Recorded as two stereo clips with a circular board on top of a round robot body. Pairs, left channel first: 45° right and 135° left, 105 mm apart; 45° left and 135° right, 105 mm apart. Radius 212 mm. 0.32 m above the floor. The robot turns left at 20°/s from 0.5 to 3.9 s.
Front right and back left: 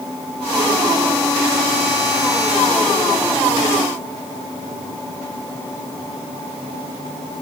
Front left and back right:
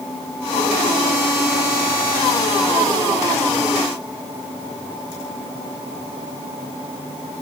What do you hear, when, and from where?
Only background noise.